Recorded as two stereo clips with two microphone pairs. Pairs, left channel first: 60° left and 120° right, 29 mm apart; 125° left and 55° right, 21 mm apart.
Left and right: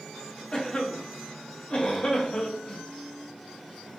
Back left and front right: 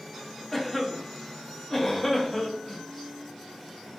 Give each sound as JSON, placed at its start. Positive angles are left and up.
{"t": 0.5, "sound": "a cough", "azimuth_deg": 60, "distance_m": 0.6}